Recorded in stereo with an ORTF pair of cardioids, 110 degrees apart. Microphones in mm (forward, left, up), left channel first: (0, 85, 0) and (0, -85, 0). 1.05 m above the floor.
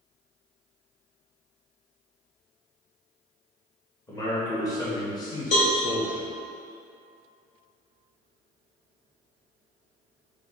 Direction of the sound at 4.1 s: 20° left.